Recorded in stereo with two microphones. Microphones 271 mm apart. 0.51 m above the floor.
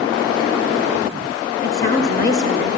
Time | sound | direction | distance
1.6 | a woman speaking | 35° left (ahead or behind) | 0.9 m